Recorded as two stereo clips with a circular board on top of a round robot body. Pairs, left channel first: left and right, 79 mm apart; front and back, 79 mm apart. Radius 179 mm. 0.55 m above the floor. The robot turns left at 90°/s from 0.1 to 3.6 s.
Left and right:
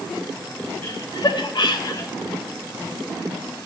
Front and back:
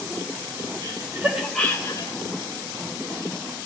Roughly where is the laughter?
Behind left.